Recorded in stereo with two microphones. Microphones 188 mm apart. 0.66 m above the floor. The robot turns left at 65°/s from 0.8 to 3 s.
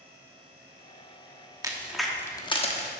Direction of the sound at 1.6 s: 20° right (ahead or behind).